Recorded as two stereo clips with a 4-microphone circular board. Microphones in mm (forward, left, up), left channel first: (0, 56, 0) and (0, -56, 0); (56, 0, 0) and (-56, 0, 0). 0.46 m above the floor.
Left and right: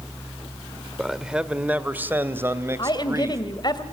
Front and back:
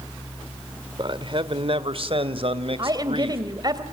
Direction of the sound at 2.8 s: 135° left.